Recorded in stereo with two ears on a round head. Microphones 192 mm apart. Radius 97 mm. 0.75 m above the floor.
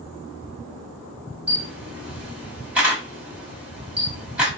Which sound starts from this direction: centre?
A camera shutter, at 1.5 s.